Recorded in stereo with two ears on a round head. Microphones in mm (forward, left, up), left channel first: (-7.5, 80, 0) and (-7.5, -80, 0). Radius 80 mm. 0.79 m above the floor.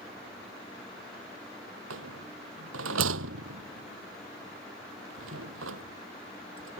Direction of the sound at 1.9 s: 90° right.